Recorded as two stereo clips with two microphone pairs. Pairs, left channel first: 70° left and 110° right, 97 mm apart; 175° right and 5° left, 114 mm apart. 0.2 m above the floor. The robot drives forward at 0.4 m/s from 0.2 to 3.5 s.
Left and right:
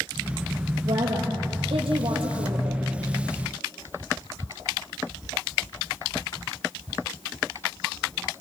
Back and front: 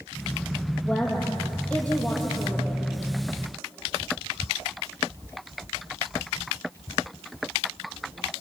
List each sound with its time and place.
0.8 s a woman speaking: 90° right, 6.5 m; by 2.9 s 100° right, 6.5 m